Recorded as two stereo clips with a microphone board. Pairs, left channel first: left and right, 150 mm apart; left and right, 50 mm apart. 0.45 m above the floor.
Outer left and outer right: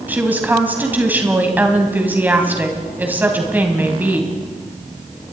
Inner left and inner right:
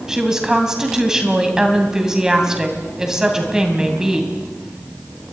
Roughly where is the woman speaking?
Centre.